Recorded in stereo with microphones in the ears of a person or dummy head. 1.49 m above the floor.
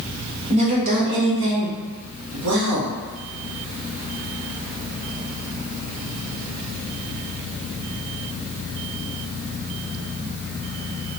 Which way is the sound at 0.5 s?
30° right (ahead or behind).